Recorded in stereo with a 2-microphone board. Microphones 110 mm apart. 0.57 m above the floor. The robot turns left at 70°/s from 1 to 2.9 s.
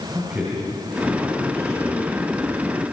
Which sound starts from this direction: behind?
A man speaking, at 0.1 s.